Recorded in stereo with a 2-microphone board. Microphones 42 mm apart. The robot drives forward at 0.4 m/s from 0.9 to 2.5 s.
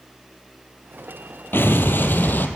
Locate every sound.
1.5 s an explosion: 60° left (ahead or behind), 1.3 m; by 2.5 s 45° left (ahead or behind), 1.5 m